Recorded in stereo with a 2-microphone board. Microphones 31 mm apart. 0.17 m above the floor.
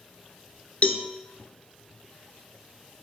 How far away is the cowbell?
About 0.7 m.